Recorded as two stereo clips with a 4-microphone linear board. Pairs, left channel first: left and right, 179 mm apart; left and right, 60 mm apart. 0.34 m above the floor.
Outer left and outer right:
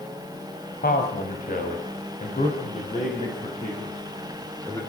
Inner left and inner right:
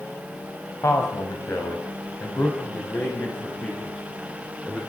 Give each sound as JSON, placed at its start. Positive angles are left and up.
{"t": 0.8, "sound": "a man speaking", "side_deg": 55, "distance_m": 2.5}